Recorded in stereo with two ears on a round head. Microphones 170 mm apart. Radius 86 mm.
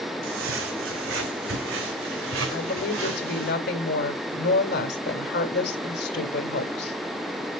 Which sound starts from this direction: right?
Footsteps, at 0.2 s.